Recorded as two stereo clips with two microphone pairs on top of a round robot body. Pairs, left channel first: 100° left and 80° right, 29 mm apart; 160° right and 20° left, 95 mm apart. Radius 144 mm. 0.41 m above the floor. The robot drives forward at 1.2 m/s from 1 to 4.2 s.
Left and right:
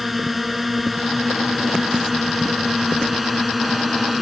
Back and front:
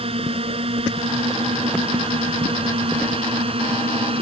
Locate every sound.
0.0 s a drone: 5° left